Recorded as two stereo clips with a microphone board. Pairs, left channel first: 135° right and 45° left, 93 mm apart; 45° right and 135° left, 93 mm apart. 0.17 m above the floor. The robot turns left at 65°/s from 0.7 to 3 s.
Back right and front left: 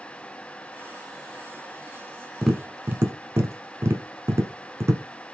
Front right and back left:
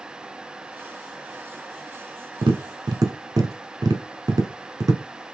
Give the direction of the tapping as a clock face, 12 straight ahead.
7 o'clock.